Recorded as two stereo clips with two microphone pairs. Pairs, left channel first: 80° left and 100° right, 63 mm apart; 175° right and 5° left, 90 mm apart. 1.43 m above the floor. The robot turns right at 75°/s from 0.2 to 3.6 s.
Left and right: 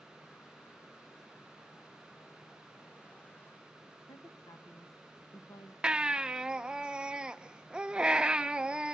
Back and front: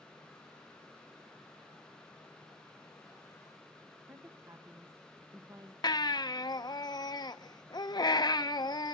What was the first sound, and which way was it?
A woman speaking, 60° left.